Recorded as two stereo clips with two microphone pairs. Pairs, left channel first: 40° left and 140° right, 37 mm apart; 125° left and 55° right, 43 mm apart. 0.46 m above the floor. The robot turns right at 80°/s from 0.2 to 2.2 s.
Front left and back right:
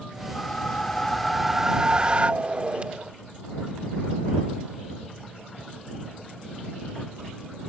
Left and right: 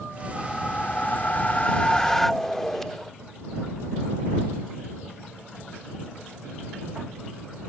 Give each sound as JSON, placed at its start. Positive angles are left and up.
{"t": 0.3, "sound": "a whoosh", "azimuth_deg": 50}